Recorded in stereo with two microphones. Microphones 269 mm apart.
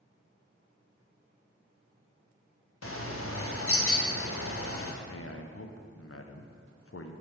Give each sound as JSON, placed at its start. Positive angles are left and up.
{"t": 2.8, "sound": "a bird", "side_deg": 55, "distance_m": 0.7}
{"t": 5.0, "sound": "a man speaking", "side_deg": 55, "distance_m": 0.6}